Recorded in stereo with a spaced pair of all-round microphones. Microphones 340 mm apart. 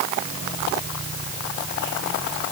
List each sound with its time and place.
Only background noise.